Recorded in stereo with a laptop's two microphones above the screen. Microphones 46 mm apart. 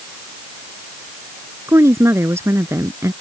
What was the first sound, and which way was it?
A woman speaking, 75° right (ahead or behind).